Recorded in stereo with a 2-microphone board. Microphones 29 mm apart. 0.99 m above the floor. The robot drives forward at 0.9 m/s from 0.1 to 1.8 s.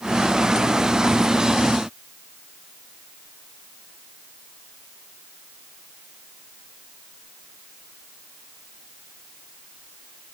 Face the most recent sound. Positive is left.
No sound to turn to.